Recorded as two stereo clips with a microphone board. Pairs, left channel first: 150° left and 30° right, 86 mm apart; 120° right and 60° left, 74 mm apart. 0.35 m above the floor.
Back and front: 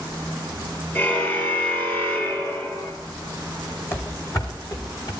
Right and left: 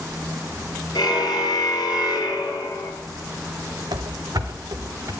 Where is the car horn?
150° right, 3.5 m; by 2.9 s 145° right, 2.5 m.